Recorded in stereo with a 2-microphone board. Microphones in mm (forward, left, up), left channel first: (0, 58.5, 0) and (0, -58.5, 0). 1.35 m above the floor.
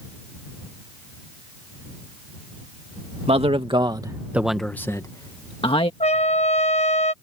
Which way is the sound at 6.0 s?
65° left (ahead or behind).